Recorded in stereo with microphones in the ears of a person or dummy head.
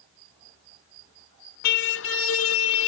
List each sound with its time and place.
1.6 s a car horn: 65° left (ahead or behind); by 2.9 s 70° left (ahead or behind)